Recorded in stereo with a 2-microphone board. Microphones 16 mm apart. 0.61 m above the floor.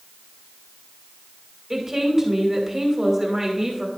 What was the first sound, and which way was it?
A woman speaking, 20° right (ahead or behind).